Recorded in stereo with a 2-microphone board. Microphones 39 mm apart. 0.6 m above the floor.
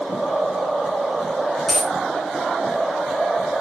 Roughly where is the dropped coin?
Centre.